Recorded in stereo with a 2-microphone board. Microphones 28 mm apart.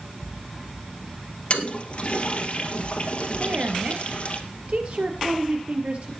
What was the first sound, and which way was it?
A toilet flushing, 45° left (ahead or behind).